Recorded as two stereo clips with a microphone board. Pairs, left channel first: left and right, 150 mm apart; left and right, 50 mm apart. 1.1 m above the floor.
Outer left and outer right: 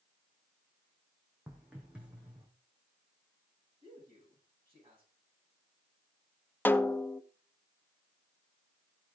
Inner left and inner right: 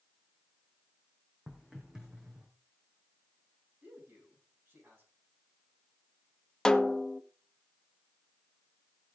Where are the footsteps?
5° right (ahead or behind), 3.5 m; by 2.5 s 10° right (ahead or behind), 4.5 m.